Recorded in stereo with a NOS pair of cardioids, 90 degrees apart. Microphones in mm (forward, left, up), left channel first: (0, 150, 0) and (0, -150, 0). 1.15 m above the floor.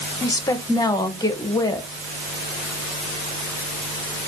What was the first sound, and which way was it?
A woman speaking, 15° left.